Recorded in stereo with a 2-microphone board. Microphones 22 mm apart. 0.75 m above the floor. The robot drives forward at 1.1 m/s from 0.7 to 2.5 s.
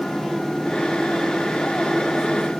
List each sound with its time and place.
Only background noise.